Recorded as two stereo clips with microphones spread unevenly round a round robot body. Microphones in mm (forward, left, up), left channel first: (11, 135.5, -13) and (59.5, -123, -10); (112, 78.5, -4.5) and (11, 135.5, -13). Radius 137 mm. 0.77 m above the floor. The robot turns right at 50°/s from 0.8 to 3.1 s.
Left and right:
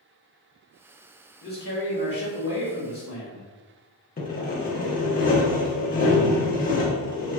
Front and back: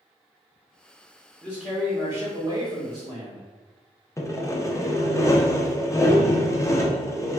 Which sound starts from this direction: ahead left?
Sawing, at 4.2 s.